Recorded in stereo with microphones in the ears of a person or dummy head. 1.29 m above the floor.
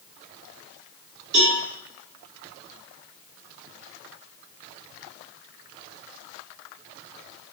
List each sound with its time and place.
1.3 s a cowbell: 55° right (ahead or behind), 5 m